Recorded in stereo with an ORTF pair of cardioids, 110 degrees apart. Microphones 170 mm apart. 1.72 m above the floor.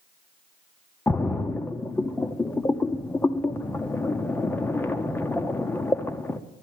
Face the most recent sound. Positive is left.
turn(degrees=10)